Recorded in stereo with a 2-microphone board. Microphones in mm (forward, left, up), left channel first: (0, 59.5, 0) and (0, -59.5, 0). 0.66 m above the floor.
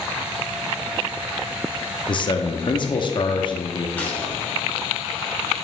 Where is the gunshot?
15° left (ahead or behind), 1.8 m.